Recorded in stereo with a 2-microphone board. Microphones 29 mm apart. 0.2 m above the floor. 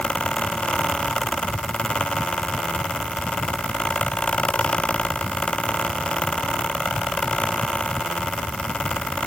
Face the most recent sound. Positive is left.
No sound to turn to.